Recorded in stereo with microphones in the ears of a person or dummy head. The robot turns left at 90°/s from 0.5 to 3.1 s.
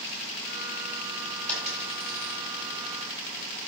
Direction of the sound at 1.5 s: 10° left (ahead or behind).